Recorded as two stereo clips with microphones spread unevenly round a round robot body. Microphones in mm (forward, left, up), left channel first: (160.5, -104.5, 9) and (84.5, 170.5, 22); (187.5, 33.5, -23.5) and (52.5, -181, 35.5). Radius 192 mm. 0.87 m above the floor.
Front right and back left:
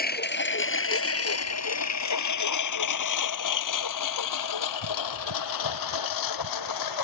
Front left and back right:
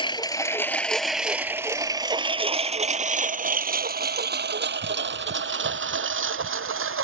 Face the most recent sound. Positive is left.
turn(degrees=-90)